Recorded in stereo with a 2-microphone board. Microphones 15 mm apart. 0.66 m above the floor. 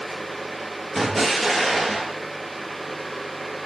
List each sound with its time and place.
0.9 s an explosion: 15° left (ahead or behind), 3 m